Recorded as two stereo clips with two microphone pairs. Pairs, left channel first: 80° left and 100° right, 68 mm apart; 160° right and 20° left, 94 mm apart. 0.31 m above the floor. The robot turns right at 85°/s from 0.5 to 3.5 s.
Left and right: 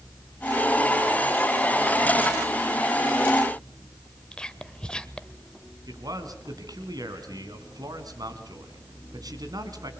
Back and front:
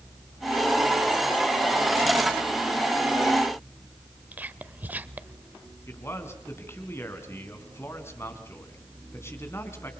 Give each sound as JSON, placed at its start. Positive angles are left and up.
{"t": 4.3, "sound": "whispering", "azimuth_deg": 30, "distance_m": 0.9}
{"t": 5.9, "sound": "a man speaking", "azimuth_deg": -100, "distance_m": 3.5}